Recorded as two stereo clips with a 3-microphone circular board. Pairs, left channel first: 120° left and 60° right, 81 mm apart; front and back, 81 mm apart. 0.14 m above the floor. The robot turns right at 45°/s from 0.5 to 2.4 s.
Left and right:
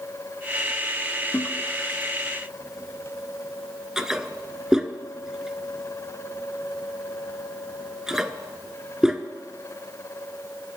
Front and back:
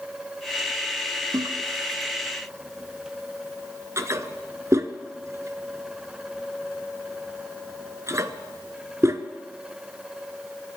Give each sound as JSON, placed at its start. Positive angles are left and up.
{"t": 1.3, "sound": "a toilet flushing", "azimuth_deg": 170, "distance_m": 0.5}